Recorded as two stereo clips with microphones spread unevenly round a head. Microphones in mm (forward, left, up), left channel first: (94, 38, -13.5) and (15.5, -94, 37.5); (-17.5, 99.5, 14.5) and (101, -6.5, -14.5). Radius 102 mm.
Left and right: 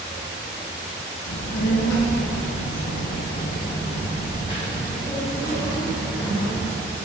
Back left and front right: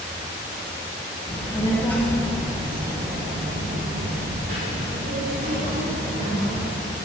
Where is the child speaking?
85° left, 1.2 m; by 6.8 s 25° right, 2.5 m.